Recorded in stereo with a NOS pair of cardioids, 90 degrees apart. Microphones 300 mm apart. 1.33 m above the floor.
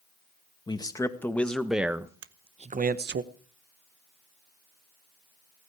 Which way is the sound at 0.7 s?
15° left.